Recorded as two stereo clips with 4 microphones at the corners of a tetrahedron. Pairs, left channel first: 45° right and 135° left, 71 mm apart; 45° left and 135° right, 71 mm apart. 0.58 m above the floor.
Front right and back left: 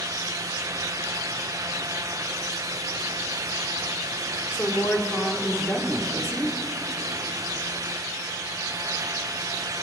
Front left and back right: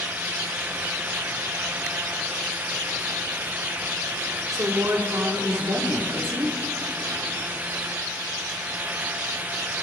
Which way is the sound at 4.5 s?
95° right.